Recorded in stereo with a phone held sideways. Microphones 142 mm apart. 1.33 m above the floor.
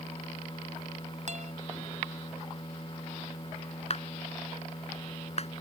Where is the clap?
50° left (ahead or behind).